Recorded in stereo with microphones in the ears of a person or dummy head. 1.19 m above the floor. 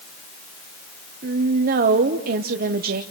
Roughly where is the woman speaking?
Right.